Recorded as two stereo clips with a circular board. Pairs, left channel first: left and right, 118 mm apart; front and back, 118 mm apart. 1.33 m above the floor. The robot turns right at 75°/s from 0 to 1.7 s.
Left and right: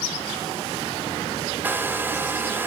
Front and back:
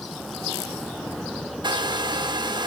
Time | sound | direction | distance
1.6 | a hair dryer | 160° right | 1.2 m